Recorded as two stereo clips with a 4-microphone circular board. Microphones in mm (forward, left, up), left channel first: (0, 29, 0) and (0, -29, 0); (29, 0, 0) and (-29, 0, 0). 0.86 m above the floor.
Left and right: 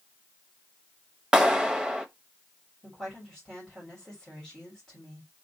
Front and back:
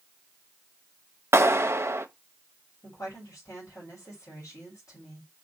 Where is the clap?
165° right, 0.6 m.